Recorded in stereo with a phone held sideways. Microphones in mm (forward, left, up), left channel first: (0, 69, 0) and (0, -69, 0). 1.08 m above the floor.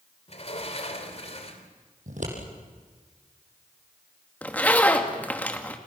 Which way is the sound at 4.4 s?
10° left (ahead or behind).